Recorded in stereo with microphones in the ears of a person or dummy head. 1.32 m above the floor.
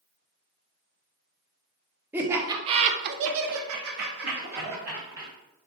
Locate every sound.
2.1 s laughter: 10° right (ahead or behind), 0.8 m; by 5.3 s 45° right (ahead or behind), 1.3 m